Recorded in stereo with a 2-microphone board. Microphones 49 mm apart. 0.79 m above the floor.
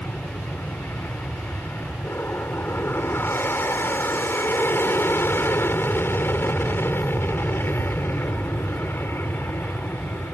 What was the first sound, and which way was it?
An aircraft, 50° left (ahead or behind).